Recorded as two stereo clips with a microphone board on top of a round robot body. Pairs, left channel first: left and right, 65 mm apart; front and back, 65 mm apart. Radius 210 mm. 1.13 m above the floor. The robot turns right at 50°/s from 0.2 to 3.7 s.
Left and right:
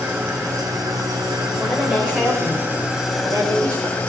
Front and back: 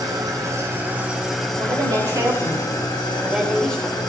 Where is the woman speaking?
175° left, 5.5 m; by 4.0 s 75° right, 5.5 m.